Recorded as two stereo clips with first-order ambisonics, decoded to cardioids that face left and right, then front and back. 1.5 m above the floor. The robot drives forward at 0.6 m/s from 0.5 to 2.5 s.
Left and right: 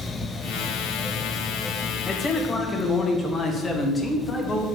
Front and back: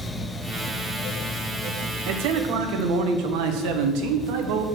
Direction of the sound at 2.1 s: 160° left.